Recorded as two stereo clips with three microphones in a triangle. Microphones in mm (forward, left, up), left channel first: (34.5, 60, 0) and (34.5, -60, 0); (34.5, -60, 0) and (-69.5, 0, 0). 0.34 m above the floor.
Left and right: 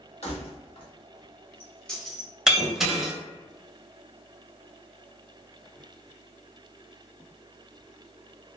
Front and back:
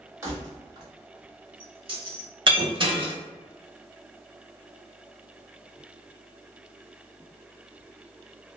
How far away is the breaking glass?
About 0.6 m.